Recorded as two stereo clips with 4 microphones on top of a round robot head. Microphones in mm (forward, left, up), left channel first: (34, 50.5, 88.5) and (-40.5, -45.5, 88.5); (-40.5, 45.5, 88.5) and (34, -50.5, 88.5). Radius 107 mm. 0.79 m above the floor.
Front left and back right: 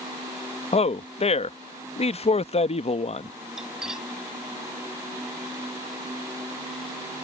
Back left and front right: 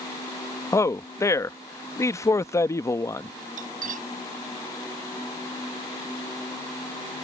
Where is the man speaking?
65° left.